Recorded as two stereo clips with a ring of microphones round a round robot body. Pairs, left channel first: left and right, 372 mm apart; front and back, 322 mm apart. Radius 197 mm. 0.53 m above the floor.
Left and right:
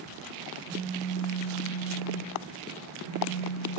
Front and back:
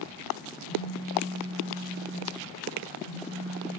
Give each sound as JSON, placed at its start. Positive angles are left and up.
{"t": 0.6, "sound": "a phone buzzing", "azimuth_deg": 130, "distance_m": 1.8}